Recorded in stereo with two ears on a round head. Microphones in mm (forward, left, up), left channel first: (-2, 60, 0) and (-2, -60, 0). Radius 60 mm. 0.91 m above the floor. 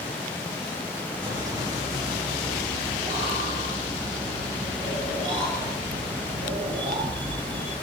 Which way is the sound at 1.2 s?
25° right (ahead or behind).